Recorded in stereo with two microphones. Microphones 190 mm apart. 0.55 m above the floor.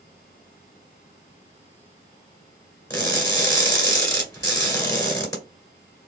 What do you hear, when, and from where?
2.9 s crushing: 20° left (ahead or behind), 1.5 m